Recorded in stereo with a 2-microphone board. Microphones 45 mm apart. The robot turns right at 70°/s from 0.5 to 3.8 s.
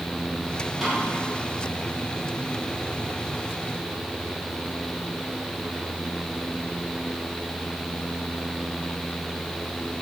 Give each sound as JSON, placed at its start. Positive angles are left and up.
{"t": 0.8, "sound": "a snare drum", "side_deg": -5, "distance_m": 6.0}